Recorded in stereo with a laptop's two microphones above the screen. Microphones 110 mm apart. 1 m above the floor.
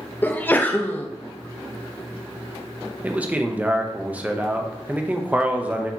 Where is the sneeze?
15° left (ahead or behind), 0.6 m.